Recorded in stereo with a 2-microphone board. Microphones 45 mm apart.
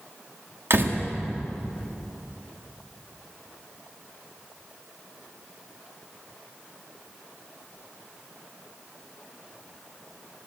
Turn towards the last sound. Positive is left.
turn(degrees=-65)  # may be behind; listen again after turning